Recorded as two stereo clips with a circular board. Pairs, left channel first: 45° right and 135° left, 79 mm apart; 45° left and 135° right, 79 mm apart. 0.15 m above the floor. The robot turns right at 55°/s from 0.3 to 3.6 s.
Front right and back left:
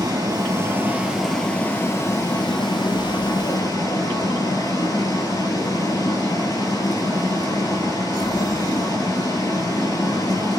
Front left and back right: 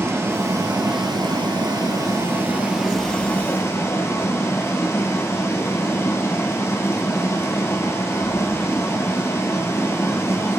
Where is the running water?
170° left, 1.9 m; by 10.6 s 10° right, 1.9 m.